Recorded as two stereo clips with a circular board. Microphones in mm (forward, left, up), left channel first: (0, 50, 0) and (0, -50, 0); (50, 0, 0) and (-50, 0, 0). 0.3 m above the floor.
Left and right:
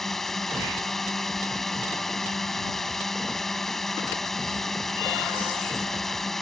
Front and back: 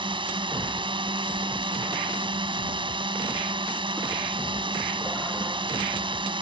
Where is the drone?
175° left.